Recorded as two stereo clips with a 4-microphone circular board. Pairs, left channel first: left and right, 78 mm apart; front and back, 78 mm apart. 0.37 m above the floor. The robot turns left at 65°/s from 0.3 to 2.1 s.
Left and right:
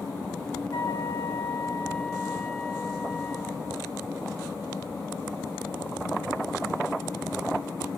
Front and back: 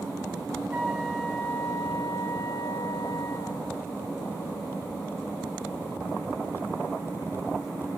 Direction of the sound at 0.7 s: 110° left.